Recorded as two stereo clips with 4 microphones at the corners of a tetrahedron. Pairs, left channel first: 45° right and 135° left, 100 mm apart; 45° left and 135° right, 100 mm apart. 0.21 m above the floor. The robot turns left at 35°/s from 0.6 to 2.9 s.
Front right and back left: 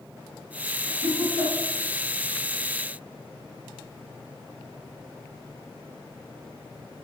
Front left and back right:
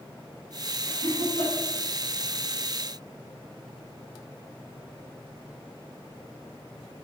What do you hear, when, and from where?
0.8 s laughter: 80° left, 3.5 m; by 1.5 s 60° left, 3.5 m